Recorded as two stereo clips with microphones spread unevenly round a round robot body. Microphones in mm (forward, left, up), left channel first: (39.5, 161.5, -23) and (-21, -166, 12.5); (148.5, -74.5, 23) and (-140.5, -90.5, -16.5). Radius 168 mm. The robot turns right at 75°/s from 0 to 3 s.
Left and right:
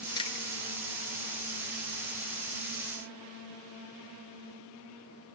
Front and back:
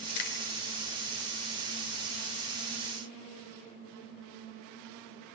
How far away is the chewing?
About 1.8 m.